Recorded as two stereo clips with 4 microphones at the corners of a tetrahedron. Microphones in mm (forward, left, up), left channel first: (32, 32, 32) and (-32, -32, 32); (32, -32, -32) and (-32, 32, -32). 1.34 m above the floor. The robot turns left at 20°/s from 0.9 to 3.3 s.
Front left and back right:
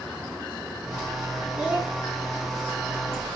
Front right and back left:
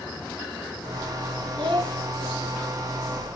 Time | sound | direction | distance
1.6 | a child speaking | 145° left | 3 m